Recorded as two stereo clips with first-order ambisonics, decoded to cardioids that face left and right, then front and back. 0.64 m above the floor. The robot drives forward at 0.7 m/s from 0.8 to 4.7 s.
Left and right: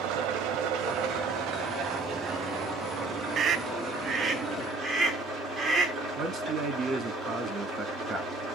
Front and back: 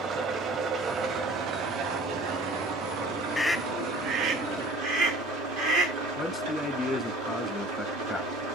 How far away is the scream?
About 0.6 m.